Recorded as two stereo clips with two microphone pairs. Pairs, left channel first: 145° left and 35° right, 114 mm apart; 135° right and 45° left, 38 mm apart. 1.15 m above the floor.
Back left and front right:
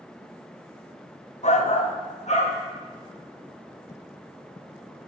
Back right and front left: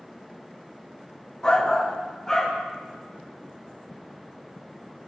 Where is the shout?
150° left, 0.5 m; by 2.6 s 145° left, 1.3 m.